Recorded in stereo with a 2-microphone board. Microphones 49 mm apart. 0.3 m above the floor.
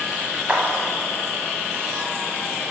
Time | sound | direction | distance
0.5 | a clap | 25° right (ahead or behind) | 1.5 m